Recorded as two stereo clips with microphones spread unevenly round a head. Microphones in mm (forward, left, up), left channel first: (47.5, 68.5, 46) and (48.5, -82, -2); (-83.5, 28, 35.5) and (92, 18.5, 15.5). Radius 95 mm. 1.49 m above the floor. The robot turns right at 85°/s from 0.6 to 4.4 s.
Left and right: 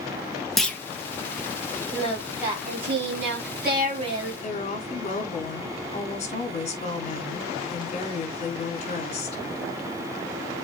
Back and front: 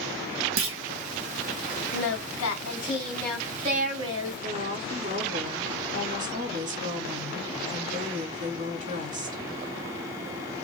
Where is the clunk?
5° left, 1.6 m; by 0.8 s 20° left, 1.6 m.